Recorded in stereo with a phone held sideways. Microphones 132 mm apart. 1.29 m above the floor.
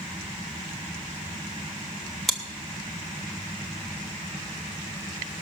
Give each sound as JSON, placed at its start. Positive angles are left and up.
{"t": 2.3, "sound": "chewing", "side_deg": 0, "distance_m": 1.2}